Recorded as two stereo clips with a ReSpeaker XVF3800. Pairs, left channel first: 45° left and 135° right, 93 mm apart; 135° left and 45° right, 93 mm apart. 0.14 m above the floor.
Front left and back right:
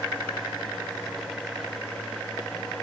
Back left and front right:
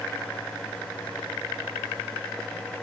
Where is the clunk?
I don't hear a clunk.